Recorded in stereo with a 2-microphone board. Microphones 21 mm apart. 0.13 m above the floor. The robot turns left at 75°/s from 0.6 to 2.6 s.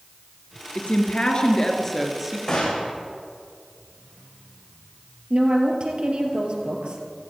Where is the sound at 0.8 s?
100° left, 2 m; by 2.4 s 20° right, 2 m.